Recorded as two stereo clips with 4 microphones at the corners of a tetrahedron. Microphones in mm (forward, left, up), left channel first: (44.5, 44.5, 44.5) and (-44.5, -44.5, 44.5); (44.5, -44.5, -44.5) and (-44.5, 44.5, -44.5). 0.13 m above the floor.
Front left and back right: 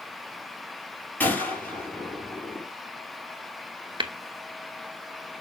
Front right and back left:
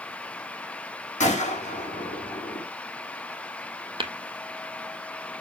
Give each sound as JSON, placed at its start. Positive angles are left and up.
{"t": 1.2, "sound": "a gunshot", "azimuth_deg": -30, "distance_m": 4.0}
{"t": 4.0, "sound": "tapping", "azimuth_deg": 180, "distance_m": 0.9}